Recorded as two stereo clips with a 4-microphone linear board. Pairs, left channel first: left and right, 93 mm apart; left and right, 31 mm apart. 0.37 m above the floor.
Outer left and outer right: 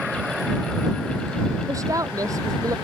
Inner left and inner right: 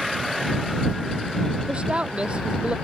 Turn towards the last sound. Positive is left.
turn(degrees=-35)  # may be behind; listen again after turning